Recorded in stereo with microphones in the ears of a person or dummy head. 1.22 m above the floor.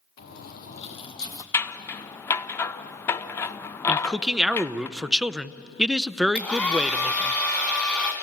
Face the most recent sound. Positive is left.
turn(degrees=0)  # may be behind; listen again after turning